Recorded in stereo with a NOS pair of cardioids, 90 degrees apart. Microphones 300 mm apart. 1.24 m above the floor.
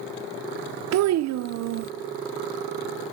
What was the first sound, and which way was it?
A child speaking, 60° right.